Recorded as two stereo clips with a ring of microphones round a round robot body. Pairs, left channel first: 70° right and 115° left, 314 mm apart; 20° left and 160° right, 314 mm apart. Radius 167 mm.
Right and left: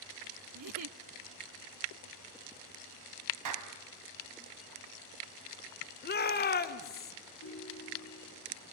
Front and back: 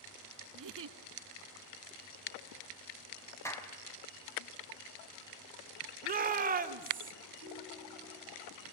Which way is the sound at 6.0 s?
110° right.